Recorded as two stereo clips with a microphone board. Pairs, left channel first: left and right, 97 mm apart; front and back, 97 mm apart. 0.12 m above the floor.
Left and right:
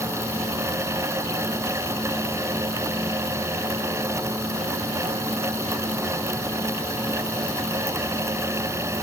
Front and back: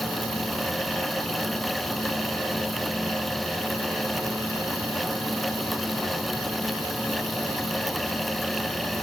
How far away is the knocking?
No knocking in this recording.